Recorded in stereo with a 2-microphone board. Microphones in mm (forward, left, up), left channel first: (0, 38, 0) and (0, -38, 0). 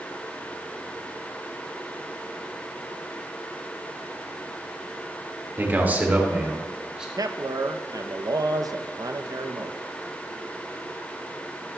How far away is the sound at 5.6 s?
About 1.9 m.